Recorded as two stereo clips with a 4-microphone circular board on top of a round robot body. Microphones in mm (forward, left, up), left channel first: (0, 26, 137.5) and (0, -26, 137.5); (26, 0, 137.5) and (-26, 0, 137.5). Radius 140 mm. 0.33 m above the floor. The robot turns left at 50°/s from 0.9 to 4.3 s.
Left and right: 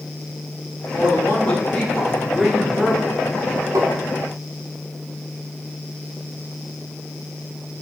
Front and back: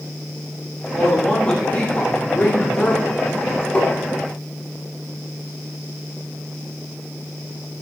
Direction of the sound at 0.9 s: 75° left.